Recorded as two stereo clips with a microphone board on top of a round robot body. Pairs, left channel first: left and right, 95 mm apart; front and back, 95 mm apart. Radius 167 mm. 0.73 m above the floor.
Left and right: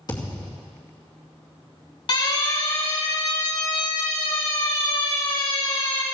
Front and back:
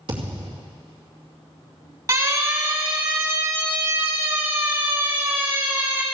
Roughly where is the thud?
Behind left.